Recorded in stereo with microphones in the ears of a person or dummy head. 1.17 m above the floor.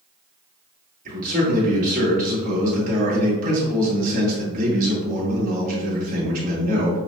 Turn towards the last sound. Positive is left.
turn(degrees=-50)  # may be behind; listen again after turning